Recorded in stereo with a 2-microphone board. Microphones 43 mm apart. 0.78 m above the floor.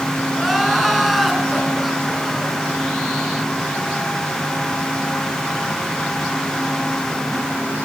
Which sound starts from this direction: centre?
Crying, at 0.3 s.